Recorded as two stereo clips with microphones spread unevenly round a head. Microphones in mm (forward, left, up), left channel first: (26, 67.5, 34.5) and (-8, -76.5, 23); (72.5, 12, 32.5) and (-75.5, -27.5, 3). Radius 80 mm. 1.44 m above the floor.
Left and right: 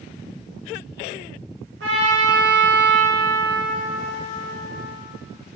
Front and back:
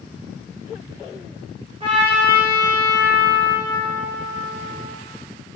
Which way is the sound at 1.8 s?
105° right.